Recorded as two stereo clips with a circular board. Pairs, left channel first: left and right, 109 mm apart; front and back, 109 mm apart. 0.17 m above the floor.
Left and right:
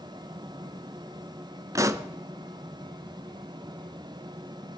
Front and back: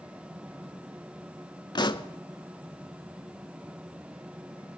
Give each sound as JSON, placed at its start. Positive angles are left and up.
{"t": 1.8, "sound": "a pop", "azimuth_deg": -35, "distance_m": 0.5}